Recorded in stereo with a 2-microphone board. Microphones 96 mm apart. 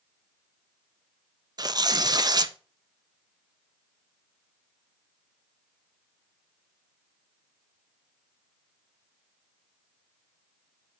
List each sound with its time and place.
1.6 s tearing paper: 45° right (ahead or behind), 0.6 m